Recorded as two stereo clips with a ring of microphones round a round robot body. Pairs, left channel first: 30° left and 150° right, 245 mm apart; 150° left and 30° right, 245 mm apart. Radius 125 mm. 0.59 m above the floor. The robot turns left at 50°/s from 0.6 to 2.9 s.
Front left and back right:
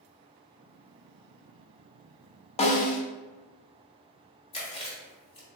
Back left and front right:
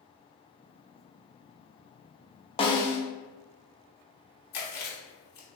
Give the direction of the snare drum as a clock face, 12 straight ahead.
9 o'clock.